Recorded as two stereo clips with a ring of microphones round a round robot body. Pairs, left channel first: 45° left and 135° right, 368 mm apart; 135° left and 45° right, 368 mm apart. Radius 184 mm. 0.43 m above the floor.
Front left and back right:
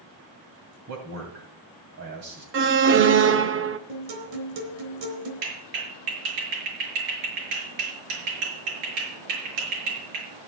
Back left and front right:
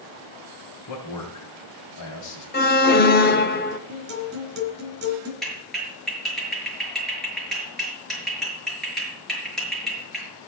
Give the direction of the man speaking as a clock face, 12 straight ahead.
6 o'clock.